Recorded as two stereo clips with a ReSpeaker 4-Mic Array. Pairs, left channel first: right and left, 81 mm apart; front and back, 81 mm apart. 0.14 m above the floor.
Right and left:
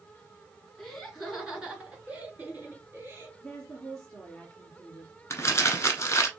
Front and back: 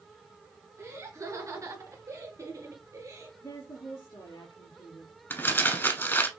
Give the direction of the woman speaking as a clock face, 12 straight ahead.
12 o'clock.